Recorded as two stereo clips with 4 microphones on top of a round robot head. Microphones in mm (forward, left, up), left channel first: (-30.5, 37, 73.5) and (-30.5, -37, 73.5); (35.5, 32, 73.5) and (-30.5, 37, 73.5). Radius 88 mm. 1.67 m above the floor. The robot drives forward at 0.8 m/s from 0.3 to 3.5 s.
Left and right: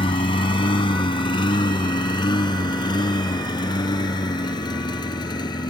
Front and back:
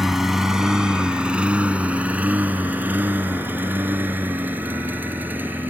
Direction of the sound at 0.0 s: 90° left.